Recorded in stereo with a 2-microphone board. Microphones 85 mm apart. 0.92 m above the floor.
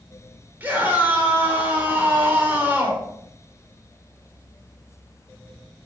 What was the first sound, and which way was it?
A scream, 20° right (ahead or behind).